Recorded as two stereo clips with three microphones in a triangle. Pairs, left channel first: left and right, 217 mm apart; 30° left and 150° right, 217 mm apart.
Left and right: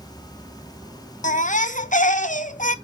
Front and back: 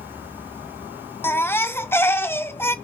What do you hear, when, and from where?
1.2 s a baby crying: 100° left, 0.6 m